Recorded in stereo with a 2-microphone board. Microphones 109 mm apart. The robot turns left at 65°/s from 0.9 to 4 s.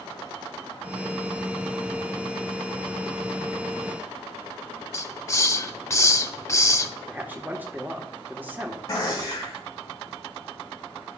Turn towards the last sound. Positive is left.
turn(degrees=35)  # may be behind; listen again after turning